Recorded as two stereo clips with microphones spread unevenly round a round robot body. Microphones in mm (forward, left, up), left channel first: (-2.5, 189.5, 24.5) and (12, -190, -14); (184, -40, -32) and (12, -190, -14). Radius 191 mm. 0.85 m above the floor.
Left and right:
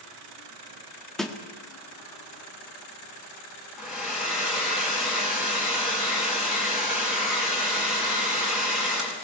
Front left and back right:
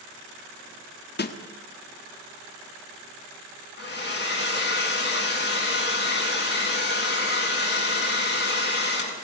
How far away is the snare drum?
About 1.7 m.